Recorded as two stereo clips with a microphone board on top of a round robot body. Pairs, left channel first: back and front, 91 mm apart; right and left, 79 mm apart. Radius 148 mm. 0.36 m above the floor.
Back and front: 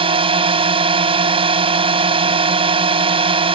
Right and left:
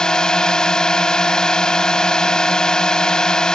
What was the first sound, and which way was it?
A drone, 10° right.